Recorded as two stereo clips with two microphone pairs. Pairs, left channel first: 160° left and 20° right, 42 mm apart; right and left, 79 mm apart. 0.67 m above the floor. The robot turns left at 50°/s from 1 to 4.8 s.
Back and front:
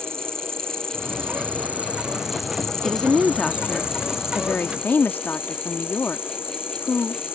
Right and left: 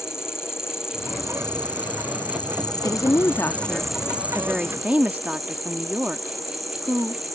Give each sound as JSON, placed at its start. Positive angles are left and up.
{"t": 0.0, "sound": "an insect", "azimuth_deg": -35}
{"t": 2.8, "sound": "a woman speaking", "azimuth_deg": -105}